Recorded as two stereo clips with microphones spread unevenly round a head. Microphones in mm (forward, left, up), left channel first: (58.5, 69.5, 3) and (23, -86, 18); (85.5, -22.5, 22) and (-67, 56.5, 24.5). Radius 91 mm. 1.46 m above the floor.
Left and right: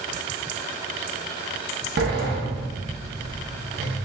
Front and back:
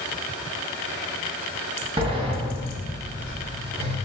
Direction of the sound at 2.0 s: 145° right.